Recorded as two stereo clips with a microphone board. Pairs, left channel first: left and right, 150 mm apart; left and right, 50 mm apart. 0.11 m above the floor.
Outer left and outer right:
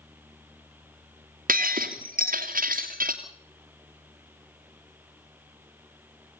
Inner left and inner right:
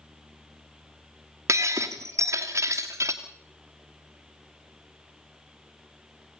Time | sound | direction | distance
1.5 | breaking glass | 70° right (ahead or behind) | 2.5 m